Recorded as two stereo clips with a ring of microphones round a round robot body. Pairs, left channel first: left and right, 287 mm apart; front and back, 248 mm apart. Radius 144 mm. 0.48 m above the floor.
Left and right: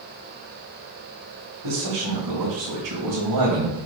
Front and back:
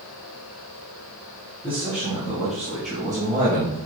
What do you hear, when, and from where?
1.6 s a man speaking: 80° right, 2.5 m; by 3.8 s 110° right, 2.5 m